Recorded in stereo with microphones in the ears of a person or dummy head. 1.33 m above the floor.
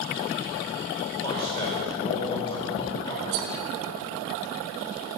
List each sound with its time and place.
1.2 s a man speaking: 25° left (ahead or behind), 2.0 m
3.3 s cutlery clinking: 60° right (ahead or behind), 1.0 m